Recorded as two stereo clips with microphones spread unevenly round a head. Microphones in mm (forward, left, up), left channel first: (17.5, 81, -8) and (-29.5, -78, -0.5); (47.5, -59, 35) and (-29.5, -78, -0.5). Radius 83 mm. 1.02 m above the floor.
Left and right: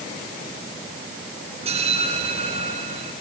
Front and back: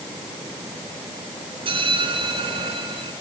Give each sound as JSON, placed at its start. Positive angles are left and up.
{"t": 1.6, "sound": "a bell", "azimuth_deg": -160, "distance_m": 5.0}